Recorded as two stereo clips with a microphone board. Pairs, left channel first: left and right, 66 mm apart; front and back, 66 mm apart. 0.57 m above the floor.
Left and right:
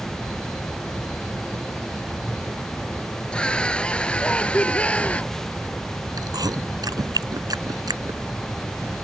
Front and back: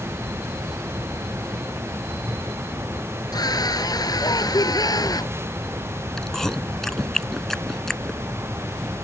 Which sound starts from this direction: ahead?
A scream, at 3.3 s.